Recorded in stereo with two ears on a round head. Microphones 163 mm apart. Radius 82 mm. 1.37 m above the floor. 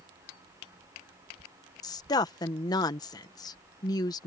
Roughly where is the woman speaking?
Left.